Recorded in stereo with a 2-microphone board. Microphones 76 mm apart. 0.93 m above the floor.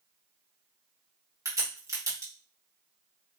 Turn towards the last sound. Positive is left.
turn(degrees=-45)  # may be behind; listen again after turning